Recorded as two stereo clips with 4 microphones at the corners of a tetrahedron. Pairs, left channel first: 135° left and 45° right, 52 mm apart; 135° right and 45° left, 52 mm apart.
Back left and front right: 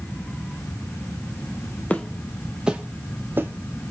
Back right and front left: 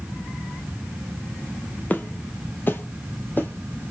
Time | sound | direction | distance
1.9 | footsteps | 175° right | 0.6 m